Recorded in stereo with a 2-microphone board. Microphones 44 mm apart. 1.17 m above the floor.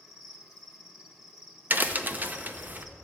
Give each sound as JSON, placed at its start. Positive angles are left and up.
{"t": 0.0, "sound": "an insect", "side_deg": 0, "distance_m": 1.4}
{"t": 1.7, "sound": "a crack", "side_deg": -40, "distance_m": 0.7}